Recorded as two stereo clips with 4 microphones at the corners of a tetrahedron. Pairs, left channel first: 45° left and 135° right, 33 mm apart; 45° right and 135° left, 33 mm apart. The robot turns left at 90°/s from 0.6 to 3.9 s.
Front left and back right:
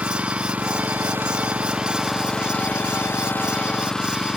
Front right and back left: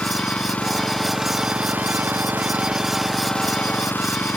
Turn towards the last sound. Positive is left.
turn(degrees=-30)